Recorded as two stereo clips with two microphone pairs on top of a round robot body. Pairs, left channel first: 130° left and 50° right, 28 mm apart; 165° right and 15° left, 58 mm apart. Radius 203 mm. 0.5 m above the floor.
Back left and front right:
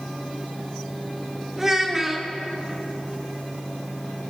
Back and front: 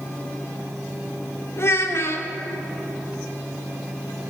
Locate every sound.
1.6 s a child speaking: 125° right, 1.4 m